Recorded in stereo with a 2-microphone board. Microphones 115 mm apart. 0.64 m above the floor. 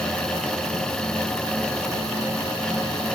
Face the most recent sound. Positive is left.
No sound to turn to.